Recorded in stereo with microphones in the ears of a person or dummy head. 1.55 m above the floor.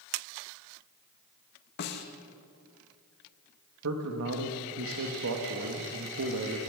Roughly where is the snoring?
No snoring in this recording.